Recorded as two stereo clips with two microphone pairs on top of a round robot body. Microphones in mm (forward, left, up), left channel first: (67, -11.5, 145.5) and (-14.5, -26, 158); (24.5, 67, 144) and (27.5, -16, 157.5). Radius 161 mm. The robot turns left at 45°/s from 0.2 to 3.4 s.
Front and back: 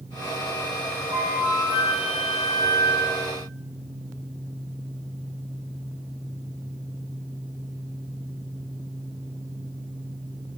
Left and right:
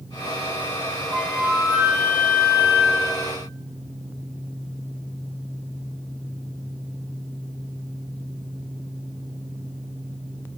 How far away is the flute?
About 0.8 m.